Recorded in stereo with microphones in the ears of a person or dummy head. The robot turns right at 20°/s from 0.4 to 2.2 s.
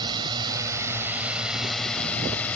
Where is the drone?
25° right; by 2.6 s 10° left.